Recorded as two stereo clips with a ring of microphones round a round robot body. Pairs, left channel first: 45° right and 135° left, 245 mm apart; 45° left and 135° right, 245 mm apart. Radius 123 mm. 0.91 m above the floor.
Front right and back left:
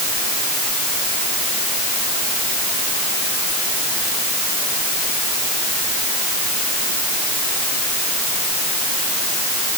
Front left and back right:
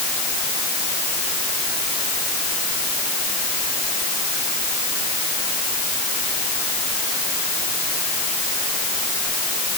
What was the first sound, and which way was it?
Only background noise.